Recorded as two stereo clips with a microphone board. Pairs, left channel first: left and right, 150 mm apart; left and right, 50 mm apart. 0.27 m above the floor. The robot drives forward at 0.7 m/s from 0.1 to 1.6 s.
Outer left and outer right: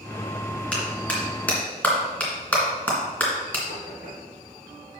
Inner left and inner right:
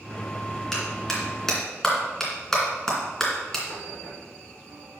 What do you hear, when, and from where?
0.7 s a clap: 10° left (ahead or behind), 3 m
3.7 s knocking: 75° left (ahead or behind), 4 m